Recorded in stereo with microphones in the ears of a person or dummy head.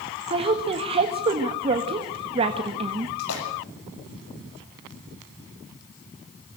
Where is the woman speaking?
30° right (ahead or behind), 1.6 m.